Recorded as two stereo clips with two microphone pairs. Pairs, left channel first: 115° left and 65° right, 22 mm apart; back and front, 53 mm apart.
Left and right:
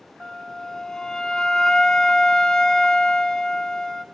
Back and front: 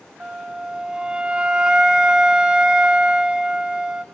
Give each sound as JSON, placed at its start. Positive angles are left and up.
{"t": 0.2, "sound": "a flute", "azimuth_deg": 70, "distance_m": 0.9}